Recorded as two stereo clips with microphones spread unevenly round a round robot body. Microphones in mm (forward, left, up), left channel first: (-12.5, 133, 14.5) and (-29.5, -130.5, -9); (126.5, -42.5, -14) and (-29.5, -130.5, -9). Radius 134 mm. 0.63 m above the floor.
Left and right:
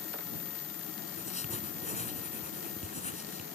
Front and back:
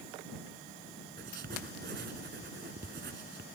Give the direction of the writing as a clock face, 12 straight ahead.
7 o'clock.